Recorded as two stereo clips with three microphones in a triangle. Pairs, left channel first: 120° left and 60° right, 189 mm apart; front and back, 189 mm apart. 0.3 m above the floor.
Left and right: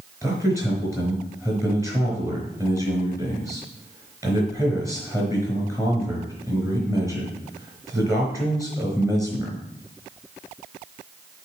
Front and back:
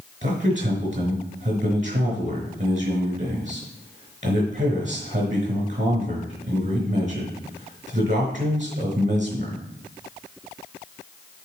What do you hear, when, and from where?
0.2 s a man speaking: 135° right, 4 m